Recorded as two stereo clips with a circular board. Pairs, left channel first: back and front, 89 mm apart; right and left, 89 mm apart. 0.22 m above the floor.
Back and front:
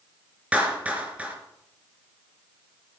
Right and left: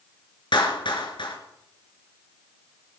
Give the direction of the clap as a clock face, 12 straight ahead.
2 o'clock.